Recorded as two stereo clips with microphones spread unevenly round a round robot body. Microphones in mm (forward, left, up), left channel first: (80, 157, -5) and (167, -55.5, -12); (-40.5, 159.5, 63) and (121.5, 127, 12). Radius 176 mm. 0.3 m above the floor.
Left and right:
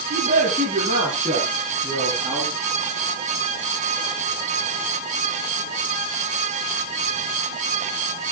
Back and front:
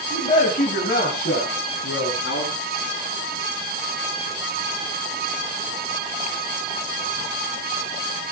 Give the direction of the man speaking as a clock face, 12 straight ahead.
4 o'clock.